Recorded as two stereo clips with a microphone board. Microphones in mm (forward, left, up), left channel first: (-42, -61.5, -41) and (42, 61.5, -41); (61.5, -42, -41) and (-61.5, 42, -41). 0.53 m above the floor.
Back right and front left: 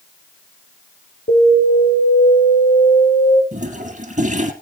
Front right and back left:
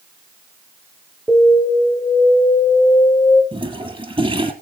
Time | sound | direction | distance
1.3 | an alarm | 120° right | 4.5 m
3.5 | a toilet flushing | 95° left | 2 m